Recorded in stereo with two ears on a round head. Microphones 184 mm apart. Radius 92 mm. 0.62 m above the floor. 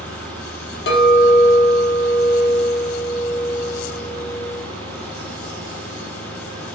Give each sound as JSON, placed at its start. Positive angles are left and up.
{"t": 0.9, "sound": "a clink", "side_deg": 50, "distance_m": 0.8}